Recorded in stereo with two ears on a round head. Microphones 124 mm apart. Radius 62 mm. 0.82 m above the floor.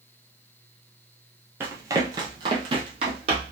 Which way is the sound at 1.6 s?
15° right (ahead or behind).